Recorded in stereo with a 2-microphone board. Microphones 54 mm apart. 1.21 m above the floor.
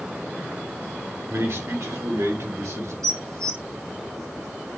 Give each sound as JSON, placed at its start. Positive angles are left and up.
{"t": 1.3, "sound": "a man speaking", "side_deg": -55, "distance_m": 3.0}
{"t": 3.0, "sound": "dishes clattering", "side_deg": -85, "distance_m": 1.9}